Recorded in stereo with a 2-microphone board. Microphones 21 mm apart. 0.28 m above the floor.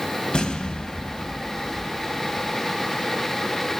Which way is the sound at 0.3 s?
45° left (ahead or behind).